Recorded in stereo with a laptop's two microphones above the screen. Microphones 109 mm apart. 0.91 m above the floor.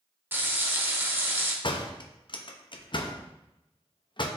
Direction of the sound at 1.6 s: 50° left (ahead or behind).